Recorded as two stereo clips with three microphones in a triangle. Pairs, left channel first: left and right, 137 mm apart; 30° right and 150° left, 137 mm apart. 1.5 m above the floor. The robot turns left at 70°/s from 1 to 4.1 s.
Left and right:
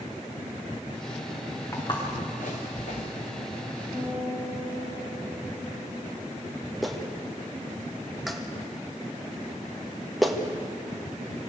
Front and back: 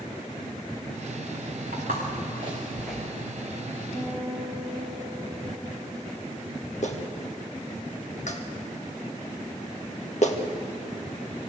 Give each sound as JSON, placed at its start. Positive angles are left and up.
{"t": 1.7, "sound": "footsteps", "azimuth_deg": 160, "distance_m": 6.0}
{"t": 3.9, "sound": "a guitar", "azimuth_deg": 45, "distance_m": 8.0}
{"t": 6.8, "sound": "a clap", "azimuth_deg": 0, "distance_m": 1.7}